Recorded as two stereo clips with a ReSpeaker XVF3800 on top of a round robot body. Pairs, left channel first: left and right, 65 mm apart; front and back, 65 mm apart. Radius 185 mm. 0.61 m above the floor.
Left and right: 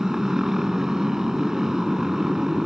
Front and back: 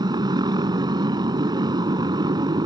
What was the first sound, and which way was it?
A motorcycle, 175° right.